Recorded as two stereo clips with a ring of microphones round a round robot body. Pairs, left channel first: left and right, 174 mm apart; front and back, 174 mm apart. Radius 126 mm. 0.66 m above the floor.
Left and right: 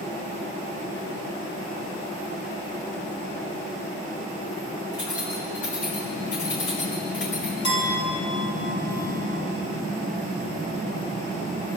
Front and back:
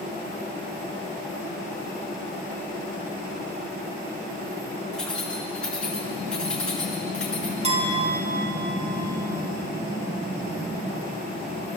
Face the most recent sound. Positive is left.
turn(degrees=125)